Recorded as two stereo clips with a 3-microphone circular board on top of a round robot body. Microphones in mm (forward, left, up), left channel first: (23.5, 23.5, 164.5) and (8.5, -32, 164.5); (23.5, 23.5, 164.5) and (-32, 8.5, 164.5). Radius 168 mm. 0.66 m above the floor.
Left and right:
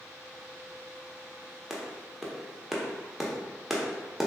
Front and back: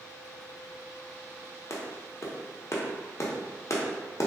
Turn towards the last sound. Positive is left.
turn(degrees=-20)